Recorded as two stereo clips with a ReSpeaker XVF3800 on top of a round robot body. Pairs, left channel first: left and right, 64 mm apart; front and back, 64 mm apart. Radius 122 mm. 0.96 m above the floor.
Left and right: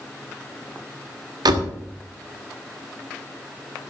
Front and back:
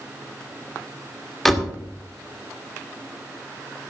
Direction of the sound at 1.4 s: 85° right.